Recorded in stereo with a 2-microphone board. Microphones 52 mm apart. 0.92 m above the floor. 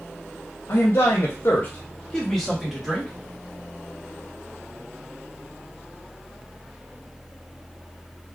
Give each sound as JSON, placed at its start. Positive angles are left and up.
{"t": 0.7, "sound": "a man speaking", "side_deg": 60, "distance_m": 0.8}